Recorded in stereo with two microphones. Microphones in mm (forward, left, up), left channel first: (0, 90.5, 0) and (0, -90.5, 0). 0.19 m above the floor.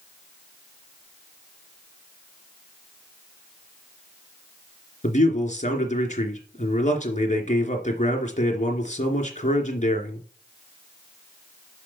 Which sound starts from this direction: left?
A man speaking, at 5.0 s.